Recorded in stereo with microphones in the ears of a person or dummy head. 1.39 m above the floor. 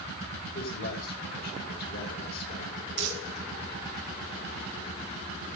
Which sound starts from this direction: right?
Crumpling, at 3.0 s.